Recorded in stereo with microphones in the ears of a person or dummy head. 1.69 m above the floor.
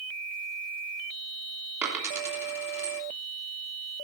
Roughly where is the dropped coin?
Centre.